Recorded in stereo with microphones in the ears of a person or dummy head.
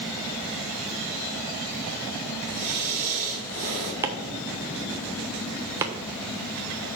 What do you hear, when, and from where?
2.5 s breathing: 35° right (ahead or behind), 1.8 m
4.0 s chopping: 15° right (ahead or behind), 0.6 m